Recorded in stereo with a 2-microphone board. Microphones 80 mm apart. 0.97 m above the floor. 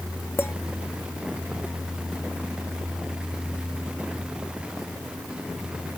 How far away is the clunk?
I don't hear a clunk.